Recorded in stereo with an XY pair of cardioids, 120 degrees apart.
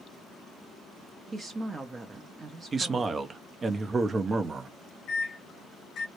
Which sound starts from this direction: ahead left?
A microwave, at 5.1 s.